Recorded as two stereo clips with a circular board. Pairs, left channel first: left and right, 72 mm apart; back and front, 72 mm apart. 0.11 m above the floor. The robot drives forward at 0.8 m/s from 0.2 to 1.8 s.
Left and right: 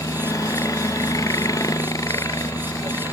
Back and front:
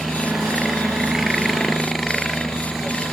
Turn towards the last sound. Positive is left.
turn(degrees=90)